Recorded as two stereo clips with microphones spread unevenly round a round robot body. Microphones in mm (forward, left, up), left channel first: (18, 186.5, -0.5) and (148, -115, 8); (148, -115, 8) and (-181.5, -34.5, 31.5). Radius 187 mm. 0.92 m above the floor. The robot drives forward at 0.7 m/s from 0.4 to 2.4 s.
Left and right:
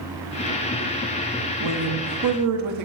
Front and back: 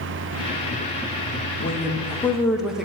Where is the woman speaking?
65° right, 1.0 m; by 2.9 s 105° right, 0.9 m.